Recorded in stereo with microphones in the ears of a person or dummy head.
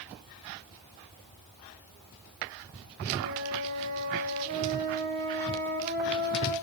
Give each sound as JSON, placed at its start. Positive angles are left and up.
{"t": 3.2, "sound": "a flute", "side_deg": -50, "distance_m": 6.5}